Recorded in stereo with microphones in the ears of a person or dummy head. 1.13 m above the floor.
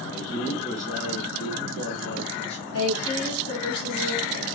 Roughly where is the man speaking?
Centre.